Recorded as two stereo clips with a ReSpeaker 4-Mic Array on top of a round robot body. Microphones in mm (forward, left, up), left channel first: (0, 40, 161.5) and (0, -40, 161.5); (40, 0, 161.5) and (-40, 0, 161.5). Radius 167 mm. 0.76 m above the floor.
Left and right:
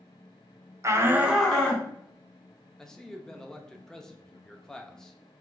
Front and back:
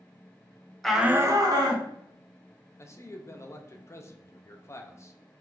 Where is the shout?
80° right, 0.9 m; by 1.9 s 170° left, 1.5 m.